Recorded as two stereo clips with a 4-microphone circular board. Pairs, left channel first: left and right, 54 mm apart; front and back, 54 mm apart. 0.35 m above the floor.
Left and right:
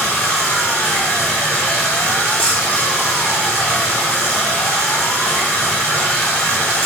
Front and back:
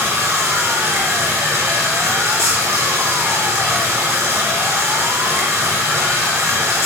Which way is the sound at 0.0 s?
155° left.